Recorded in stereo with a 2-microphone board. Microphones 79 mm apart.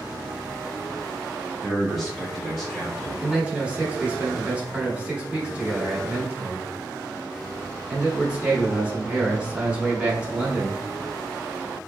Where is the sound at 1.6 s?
5° right (ahead or behind), 1.0 m.